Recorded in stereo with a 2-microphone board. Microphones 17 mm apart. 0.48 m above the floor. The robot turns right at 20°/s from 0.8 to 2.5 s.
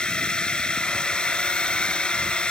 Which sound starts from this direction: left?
A drone, at 0.0 s.